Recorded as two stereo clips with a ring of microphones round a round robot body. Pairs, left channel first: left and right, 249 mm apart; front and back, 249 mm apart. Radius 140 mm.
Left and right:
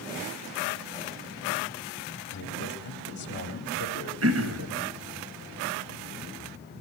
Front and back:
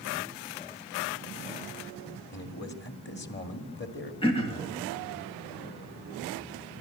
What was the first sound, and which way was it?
A man speaking, 45° left.